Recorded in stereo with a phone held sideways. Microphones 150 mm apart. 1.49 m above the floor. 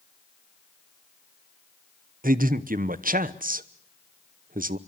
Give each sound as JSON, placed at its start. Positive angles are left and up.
{"t": 2.2, "sound": "a man speaking", "side_deg": -70, "distance_m": 1.0}